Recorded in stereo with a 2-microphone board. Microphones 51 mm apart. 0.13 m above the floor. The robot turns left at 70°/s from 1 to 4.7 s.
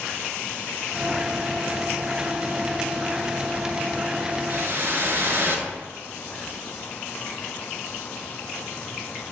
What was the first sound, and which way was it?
A whoosh, 45° right (ahead or behind).